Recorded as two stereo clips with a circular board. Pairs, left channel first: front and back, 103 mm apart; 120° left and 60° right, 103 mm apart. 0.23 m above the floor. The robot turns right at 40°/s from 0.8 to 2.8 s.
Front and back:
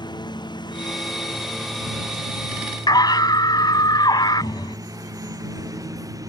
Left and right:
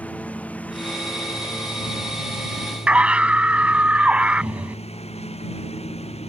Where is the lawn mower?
45° left; by 6.3 s 125° left.